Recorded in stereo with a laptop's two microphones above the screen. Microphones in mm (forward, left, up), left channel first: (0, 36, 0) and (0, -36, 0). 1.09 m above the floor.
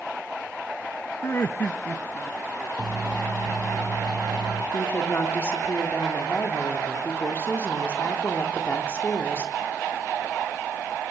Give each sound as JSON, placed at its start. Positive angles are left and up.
{"t": 1.2, "sound": "laughter", "side_deg": 40, "distance_m": 0.9}
{"t": 2.8, "sound": "a microwave", "side_deg": -75, "distance_m": 7.0}
{"t": 4.7, "sound": "a woman speaking", "side_deg": 30, "distance_m": 3.5}